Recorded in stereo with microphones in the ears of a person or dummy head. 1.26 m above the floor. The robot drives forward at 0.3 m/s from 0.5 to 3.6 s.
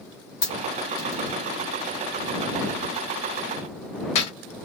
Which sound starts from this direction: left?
A dropped coin, at 0.4 s.